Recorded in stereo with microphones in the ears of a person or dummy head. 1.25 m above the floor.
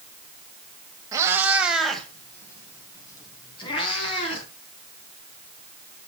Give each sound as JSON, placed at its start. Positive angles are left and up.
{"t": 1.1, "sound": "a cat meowing", "side_deg": -20, "distance_m": 1.9}